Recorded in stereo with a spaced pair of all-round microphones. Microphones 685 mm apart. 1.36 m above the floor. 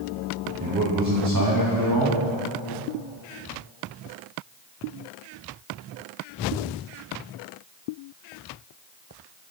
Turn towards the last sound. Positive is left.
turn(degrees=-30)  # may be behind; listen again after turning